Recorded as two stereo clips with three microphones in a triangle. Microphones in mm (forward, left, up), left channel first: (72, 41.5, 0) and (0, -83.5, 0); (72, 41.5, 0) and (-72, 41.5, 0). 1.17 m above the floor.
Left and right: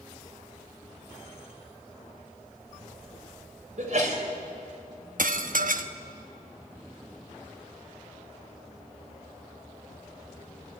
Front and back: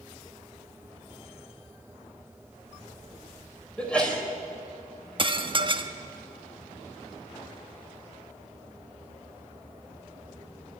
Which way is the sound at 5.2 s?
130° right.